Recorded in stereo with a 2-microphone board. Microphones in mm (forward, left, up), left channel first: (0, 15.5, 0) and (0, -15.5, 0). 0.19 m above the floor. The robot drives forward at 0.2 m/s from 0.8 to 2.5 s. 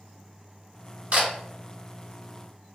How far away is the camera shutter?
About 1.3 m.